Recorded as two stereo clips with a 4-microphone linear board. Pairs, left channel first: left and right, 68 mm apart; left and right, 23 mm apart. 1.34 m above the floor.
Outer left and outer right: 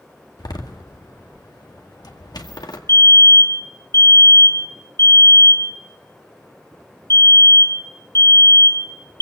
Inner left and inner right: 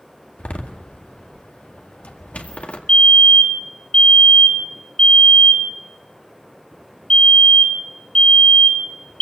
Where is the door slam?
80° left, 1.9 m.